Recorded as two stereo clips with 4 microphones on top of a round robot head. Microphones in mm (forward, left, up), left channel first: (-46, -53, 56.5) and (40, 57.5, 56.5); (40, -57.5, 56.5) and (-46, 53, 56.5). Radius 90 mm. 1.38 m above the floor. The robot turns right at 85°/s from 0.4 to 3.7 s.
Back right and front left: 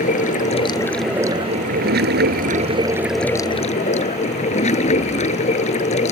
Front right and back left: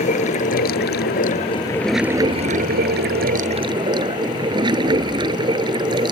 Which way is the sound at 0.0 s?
90° right.